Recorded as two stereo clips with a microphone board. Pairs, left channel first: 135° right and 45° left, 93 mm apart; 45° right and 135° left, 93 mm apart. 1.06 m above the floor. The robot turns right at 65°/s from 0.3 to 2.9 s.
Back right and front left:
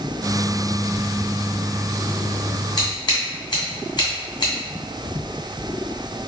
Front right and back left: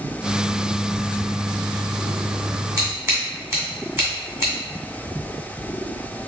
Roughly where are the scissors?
Behind.